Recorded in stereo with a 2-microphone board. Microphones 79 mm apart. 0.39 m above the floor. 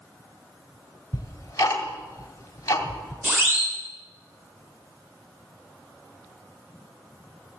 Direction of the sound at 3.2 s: 30° right (ahead or behind).